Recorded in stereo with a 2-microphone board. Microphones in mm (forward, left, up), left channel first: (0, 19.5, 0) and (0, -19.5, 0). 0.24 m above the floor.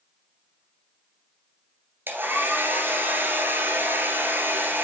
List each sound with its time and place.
2.1 s a hair dryer: 70° right (ahead or behind), 2.0 m